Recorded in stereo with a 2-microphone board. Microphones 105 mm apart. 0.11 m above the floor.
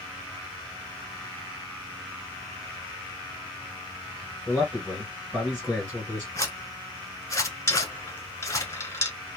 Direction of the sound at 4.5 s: 5° left (ahead or behind).